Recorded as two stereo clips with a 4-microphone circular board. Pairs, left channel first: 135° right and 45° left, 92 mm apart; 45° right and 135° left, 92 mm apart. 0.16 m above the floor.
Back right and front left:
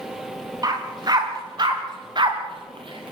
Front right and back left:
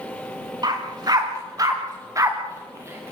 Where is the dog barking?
90° left, 8.5 m; by 3.1 s 70° left, 6 m.